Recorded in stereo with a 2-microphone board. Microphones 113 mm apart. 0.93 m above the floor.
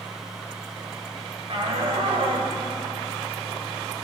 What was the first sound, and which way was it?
A shout, 55° right (ahead or behind).